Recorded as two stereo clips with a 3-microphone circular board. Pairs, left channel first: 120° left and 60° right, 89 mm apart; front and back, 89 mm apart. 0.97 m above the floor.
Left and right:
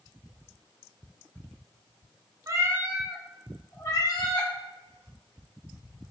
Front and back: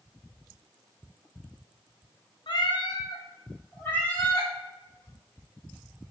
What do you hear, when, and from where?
2.5 s a cat meowing: 15° right, 0.5 m; by 4.5 s 80° left, 0.9 m